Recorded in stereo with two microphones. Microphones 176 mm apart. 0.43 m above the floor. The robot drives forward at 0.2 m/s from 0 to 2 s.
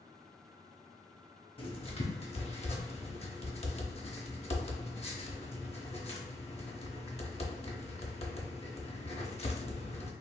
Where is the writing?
30° left (ahead or behind), 0.6 m; by 10.1 s 35° left (ahead or behind), 0.5 m.